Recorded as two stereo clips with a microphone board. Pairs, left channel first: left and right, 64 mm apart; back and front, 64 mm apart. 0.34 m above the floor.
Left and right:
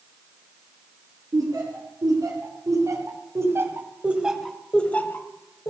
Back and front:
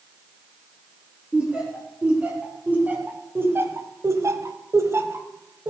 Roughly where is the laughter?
Right.